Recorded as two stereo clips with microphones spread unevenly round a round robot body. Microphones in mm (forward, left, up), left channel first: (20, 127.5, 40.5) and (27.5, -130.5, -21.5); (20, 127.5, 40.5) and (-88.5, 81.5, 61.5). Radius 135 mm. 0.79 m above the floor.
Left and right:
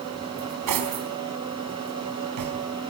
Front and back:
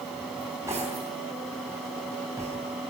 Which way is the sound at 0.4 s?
80° right.